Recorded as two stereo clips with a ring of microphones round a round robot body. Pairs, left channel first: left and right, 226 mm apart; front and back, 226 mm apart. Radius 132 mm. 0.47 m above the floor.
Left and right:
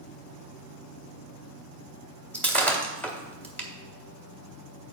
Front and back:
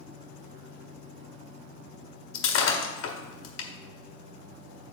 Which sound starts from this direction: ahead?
Breaking glass, at 2.3 s.